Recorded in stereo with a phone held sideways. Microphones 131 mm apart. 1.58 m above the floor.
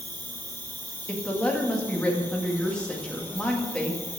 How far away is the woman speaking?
About 1.9 m.